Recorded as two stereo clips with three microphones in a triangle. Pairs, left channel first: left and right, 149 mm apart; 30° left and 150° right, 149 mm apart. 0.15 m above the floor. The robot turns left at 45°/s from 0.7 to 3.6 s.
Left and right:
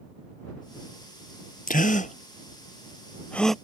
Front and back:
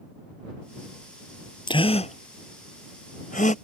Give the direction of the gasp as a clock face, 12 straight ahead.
9 o'clock.